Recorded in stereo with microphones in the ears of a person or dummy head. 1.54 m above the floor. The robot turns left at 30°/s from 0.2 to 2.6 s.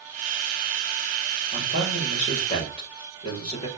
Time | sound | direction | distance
1.5 | a man speaking | 70° left | 7 m